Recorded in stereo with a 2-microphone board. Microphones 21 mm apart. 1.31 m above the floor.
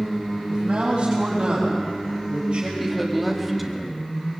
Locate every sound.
0.5 s a man speaking: 50° right (ahead or behind), 7 m; by 2.7 s 45° right (ahead or behind), 5.5 m
2.8 s a woman speaking: centre (ahead or behind), 2.5 m